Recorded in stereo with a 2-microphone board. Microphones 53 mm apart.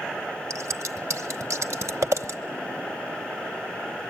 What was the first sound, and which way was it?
Scissors, 65° right (ahead or behind).